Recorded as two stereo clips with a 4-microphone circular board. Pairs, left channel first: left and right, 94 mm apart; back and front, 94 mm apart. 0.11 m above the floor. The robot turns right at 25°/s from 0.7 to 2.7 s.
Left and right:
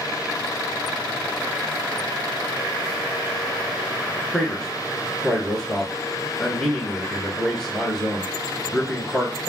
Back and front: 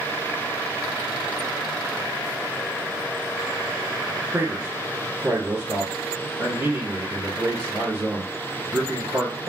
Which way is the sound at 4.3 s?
10° left.